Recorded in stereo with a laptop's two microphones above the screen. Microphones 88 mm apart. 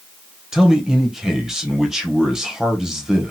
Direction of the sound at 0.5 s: 5° right (ahead or behind).